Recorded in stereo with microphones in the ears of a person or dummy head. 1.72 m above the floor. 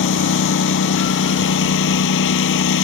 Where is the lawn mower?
75° left (ahead or behind).